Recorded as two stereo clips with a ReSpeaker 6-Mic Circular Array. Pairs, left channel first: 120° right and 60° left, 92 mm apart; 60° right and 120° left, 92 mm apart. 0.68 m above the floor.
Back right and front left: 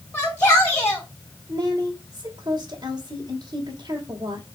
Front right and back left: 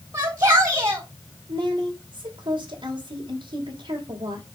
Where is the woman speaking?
105° left, 3 m.